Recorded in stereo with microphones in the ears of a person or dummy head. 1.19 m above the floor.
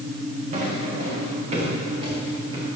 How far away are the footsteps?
About 5 m.